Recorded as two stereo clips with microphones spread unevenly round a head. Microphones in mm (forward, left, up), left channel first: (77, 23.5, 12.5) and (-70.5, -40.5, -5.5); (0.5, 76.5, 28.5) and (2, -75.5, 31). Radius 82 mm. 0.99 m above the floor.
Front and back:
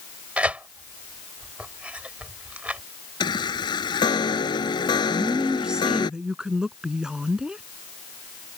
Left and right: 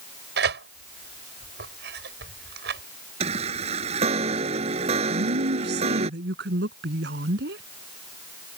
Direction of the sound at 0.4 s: 75° right.